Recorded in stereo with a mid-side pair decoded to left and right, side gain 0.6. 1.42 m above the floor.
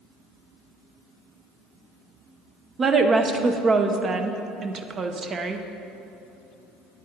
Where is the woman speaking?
35° right, 0.7 m.